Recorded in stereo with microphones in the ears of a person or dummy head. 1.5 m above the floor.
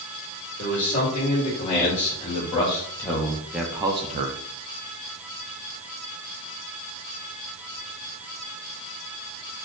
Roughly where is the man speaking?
Left.